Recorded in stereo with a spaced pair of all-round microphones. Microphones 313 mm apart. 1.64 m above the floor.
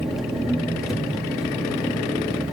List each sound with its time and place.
0.0 s an engine running: centre (ahead or behind), 3 m